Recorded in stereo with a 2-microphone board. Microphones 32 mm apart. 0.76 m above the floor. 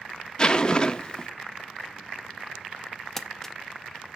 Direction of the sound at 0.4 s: 25° left (ahead or behind).